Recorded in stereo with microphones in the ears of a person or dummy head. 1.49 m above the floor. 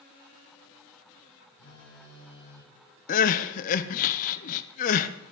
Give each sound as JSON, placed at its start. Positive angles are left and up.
{"t": 1.6, "sound": "a phone buzzing", "side_deg": 70, "distance_m": 7.5}
{"t": 3.1, "sound": "crying", "side_deg": 45, "distance_m": 0.8}